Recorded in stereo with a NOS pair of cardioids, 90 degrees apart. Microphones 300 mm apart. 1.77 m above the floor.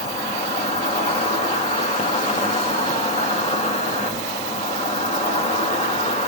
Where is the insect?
20° left, 1.4 m.